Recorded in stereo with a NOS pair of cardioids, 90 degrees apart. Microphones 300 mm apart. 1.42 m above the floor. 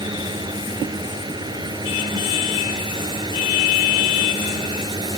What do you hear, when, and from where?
0.0 s a fan: 15° right